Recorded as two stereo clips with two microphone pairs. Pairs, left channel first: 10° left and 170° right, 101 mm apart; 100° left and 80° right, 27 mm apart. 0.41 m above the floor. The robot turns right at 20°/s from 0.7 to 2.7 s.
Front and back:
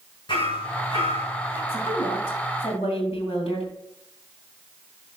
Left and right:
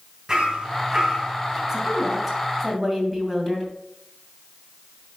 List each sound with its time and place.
0.3 s hammering: 25° right, 2.5 m; by 1.6 s 5° right, 2.5 m
1.7 s a woman speaking: 5° right, 2.5 m; by 3.7 s 15° left, 2.5 m